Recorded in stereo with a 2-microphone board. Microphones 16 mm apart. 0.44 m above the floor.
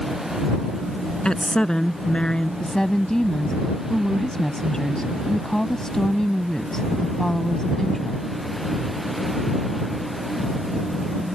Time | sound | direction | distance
1.2 | a woman speaking | 75° left (ahead or behind) | ?
2.6 | a woman speaking | 45° left (ahead or behind) | ?